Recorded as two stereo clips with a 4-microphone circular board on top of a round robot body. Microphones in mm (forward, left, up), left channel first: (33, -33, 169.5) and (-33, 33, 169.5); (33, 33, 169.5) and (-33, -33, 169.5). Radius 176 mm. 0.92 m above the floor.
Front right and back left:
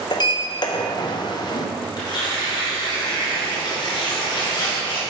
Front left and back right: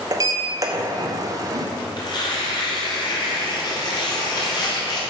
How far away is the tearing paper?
About 1.4 m.